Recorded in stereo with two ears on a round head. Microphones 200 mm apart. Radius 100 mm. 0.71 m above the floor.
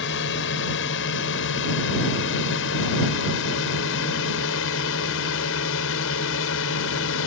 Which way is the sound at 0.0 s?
60° left (ahead or behind).